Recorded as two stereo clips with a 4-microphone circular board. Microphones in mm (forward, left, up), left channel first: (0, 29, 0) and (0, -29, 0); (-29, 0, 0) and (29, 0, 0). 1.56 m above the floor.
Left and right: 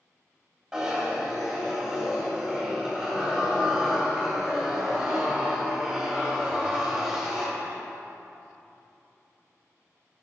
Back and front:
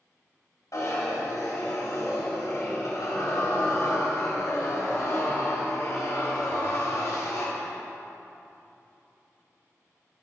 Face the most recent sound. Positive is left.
turn(degrees=-170)